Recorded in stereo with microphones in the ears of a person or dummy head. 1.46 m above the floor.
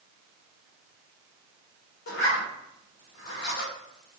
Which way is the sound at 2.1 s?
60° left (ahead or behind).